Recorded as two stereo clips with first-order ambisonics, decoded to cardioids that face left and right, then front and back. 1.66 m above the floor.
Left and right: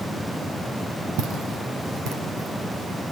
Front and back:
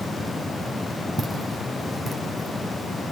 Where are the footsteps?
80° right, 2.5 m; by 3.0 s 60° right, 3.5 m.